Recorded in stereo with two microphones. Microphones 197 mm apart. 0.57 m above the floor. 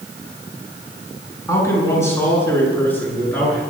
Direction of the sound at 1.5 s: 15° left (ahead or behind).